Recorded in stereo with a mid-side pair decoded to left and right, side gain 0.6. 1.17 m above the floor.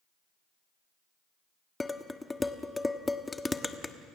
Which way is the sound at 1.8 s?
15° left.